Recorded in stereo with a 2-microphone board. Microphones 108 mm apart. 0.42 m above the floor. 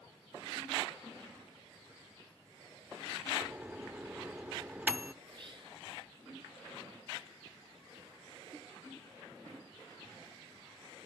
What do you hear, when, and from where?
3.4 s a microwave: 15° right (ahead or behind), 0.6 m
5.2 s whispering: 45° right (ahead or behind), 5 m